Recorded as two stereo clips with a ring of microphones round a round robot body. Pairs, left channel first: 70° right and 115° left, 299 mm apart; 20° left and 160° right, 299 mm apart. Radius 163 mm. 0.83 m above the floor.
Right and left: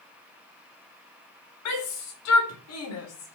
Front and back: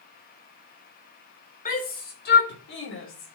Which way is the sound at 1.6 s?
40° right.